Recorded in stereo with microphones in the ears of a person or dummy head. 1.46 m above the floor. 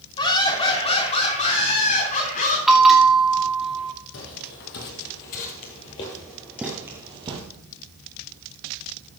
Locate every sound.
0.2 s laughter: 25° left (ahead or behind), 3.5 m; by 2.6 s 50° left (ahead or behind), 4 m
2.7 s a bell: centre (ahead or behind), 2 m
4.1 s footsteps: 60° left (ahead or behind), 3 m; by 7.4 s 30° right (ahead or behind), 1.9 m